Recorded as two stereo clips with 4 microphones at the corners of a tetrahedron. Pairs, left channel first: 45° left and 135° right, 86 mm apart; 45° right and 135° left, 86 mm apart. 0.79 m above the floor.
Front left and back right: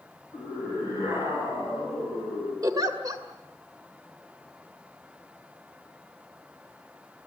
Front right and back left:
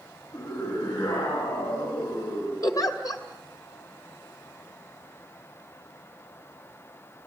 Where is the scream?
80° right, 9 m; by 2.5 s 85° right, 9.5 m.